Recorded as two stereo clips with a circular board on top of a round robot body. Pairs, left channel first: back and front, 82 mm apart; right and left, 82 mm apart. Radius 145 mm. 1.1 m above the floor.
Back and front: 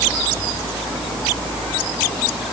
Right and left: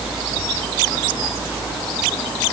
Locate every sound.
Only background noise.